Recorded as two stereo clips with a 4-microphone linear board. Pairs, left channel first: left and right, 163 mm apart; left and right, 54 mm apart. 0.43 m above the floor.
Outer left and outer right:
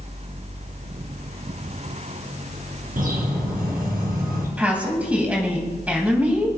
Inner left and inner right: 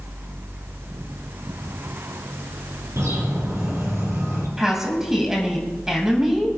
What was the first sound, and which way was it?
A bird, 60° right (ahead or behind).